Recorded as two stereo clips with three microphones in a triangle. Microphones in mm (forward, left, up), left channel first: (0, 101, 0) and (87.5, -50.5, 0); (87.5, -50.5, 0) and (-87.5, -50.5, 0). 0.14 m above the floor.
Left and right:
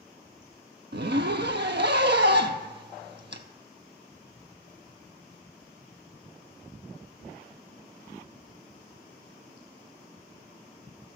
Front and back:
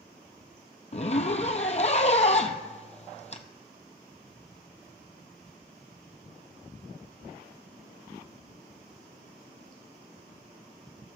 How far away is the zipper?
About 0.6 m.